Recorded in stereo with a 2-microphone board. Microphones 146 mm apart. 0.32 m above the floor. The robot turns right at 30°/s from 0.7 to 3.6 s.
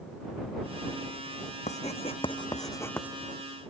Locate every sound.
1.7 s writing: 55° left (ahead or behind); by 3.1 s 10° left (ahead or behind)